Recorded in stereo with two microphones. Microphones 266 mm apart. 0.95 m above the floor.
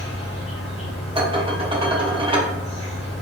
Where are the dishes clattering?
20° right (ahead or behind), 1.0 m.